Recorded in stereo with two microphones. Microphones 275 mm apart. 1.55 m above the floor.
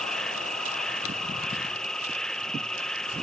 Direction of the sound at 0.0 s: Centre (ahead or behind).